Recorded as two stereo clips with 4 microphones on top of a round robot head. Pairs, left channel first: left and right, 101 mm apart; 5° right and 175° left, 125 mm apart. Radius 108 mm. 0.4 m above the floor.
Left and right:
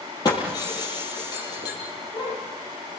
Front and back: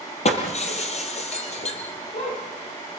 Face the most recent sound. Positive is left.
turn(degrees=30)